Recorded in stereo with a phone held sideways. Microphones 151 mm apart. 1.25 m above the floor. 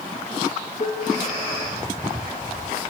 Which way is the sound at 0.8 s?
45° left (ahead or behind).